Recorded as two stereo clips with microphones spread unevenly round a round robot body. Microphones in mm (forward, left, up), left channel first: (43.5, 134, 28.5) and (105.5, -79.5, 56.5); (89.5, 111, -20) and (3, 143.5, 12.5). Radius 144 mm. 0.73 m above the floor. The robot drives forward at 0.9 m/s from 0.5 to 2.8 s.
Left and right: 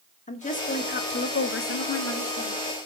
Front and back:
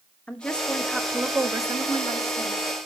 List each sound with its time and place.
0.3 s a woman speaking: 50° left, 1.5 m; by 2.7 s 135° left, 1.6 m